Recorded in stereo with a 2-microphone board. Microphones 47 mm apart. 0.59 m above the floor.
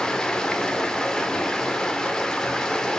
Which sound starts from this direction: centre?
Running water, at 0.0 s.